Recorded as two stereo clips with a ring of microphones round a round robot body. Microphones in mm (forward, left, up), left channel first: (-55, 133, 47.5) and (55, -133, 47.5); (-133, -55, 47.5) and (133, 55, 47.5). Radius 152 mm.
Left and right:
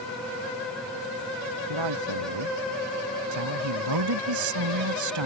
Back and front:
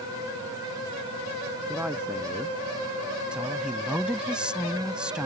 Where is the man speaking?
65° right.